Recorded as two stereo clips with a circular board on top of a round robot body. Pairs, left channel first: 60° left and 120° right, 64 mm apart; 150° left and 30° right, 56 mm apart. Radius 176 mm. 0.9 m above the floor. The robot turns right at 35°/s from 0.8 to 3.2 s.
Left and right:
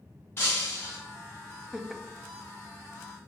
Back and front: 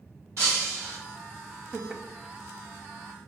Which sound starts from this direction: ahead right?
Laughter, at 1.7 s.